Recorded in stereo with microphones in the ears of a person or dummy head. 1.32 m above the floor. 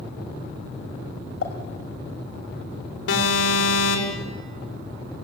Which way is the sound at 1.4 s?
65° left (ahead or behind).